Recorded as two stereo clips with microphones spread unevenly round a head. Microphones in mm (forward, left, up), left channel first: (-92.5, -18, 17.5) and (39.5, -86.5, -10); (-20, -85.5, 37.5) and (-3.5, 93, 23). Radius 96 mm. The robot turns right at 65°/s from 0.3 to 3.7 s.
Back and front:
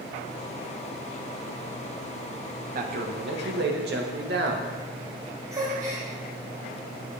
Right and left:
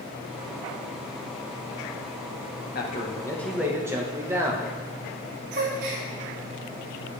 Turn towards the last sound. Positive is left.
turn(degrees=50)